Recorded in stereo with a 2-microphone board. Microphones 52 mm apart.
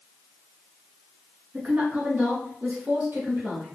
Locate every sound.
1.5 s a woman speaking: 35° right (ahead or behind), 1.3 m; by 3.8 s 70° right (ahead or behind), 3 m